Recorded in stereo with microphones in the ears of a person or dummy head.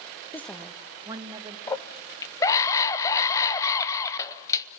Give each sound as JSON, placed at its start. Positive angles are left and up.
{"t": 0.3, "sound": "a woman speaking", "side_deg": 15, "distance_m": 0.8}
{"t": 1.7, "sound": "a scream", "side_deg": 20, "distance_m": 0.8}